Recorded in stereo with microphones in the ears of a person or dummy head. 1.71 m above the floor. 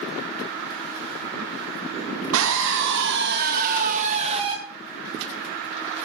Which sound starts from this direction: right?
A scream, at 2.3 s.